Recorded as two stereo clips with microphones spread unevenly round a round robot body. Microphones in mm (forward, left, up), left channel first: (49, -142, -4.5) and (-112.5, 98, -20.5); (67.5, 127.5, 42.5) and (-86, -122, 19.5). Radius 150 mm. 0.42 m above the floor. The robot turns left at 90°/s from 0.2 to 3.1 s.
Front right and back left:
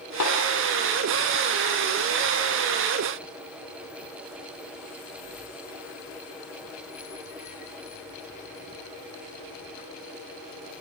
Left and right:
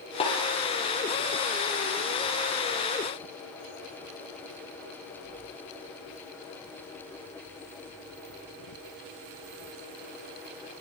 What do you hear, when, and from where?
0.2 s a snare drum: 10° right, 7.5 m; by 0.4 s 25° right, 7.5 m